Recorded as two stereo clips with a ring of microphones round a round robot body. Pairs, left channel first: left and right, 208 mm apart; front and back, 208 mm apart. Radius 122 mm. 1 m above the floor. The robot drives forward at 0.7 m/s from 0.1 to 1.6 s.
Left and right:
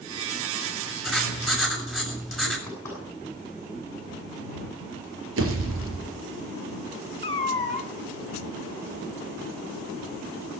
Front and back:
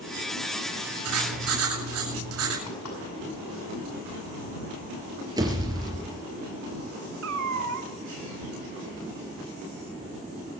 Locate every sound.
1.0 s writing: straight behind, 7 m
2.7 s knocking: 10° left, 6.5 m
5.4 s a pop: 110° right, 3.5 m
7.2 s a cat meowing: 150° left, 1.6 m